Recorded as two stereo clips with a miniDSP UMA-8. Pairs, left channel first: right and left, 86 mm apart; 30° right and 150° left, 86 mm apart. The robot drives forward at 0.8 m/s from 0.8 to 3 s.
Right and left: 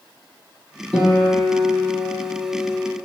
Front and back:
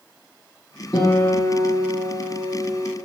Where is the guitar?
20° right, 1.5 m; by 3.0 s 145° right, 1.2 m.